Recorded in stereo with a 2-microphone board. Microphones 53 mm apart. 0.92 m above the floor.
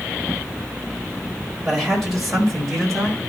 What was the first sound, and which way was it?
A man speaking, 5° right (ahead or behind).